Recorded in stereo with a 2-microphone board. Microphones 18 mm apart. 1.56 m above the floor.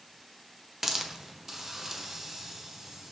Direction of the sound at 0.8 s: 25° right (ahead or behind).